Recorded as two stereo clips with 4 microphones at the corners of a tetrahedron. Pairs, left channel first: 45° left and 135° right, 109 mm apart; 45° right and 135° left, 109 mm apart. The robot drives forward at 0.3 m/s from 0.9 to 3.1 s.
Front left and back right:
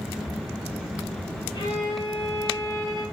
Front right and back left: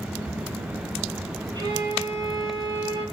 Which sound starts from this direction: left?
A violin, at 1.5 s.